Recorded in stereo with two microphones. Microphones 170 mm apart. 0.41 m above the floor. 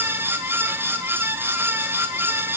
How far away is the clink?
No clink in this recording.